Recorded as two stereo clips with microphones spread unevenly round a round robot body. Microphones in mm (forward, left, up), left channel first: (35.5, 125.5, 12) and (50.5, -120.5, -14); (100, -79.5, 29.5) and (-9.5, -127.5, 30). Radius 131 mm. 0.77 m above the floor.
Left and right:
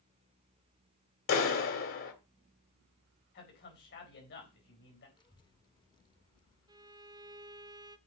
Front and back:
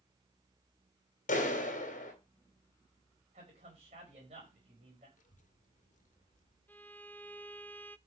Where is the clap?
55° left, 2.5 m.